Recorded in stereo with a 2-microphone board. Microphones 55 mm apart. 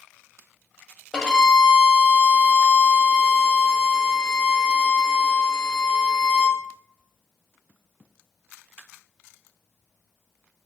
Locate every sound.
1.1 s a violin: 15° left (ahead or behind), 0.8 m